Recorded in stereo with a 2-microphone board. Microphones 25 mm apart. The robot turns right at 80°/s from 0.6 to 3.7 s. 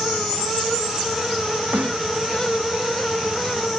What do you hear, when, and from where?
1.7 s a snare drum: 80° right; by 2.0 s 70° right (ahead or behind)